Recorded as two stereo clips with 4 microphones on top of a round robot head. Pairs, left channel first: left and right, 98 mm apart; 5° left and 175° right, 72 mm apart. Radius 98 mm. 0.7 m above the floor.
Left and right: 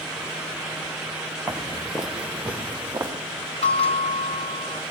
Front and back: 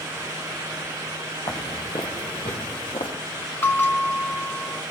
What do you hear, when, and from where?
1.5 s footsteps: 25° left, 0.8 m; by 3.1 s 20° right, 2.5 m
3.6 s a bell: 65° left, 1.4 m